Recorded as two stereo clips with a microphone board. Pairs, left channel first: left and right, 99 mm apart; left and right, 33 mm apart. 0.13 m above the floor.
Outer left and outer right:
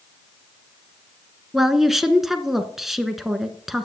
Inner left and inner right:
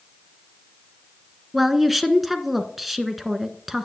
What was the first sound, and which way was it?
A woman speaking, 5° right (ahead or behind).